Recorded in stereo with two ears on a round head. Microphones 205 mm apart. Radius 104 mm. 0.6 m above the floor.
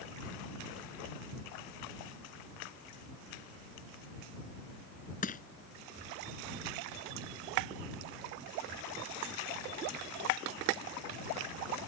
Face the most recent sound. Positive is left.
turn(degrees=40)  # may be behind; listen again after turning